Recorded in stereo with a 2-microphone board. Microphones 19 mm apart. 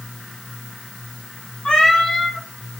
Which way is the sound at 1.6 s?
65° left (ahead or behind).